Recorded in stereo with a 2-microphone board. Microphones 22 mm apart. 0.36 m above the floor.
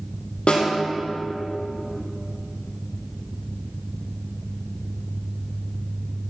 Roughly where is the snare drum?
Left.